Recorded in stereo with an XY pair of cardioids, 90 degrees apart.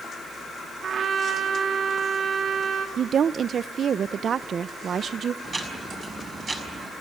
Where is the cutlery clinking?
No cutlery clinking in this recording.